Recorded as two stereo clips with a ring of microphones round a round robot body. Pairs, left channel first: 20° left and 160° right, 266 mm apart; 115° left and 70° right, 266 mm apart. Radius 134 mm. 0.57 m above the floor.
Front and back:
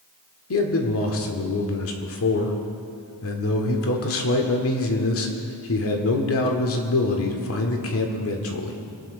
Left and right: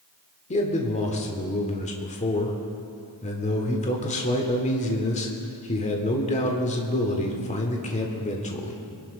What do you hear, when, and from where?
0.5 s a man speaking: 50° left, 1.6 m